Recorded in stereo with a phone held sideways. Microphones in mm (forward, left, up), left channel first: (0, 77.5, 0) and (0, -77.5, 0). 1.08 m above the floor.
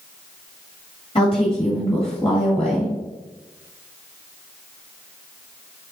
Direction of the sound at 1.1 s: 35° left (ahead or behind).